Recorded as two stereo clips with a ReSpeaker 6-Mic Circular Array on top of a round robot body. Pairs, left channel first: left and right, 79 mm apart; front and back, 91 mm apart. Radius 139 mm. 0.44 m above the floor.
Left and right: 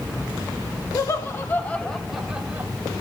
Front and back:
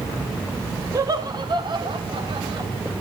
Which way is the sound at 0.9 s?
135° left.